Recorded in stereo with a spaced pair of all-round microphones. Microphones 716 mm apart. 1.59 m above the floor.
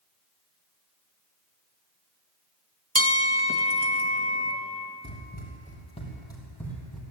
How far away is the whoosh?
No whoosh in this recording.